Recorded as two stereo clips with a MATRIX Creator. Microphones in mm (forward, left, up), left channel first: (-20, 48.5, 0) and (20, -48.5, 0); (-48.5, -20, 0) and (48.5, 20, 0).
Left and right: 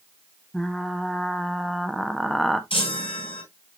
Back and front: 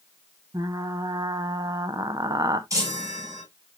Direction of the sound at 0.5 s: 25° left.